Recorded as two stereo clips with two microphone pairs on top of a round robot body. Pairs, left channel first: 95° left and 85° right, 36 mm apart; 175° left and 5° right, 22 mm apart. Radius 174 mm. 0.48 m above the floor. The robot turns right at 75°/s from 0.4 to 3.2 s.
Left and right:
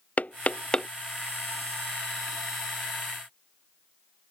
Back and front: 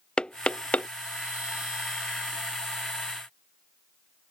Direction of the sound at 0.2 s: 135° left.